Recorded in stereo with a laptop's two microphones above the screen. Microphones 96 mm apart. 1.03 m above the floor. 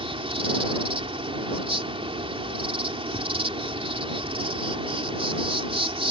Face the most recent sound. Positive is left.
turn(degrees=-75)  # may be behind; listen again after turning